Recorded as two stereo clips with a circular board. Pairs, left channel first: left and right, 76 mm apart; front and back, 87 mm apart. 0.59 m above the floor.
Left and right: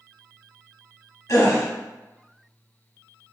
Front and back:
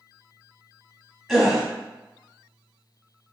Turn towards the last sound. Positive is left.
turn(degrees=90)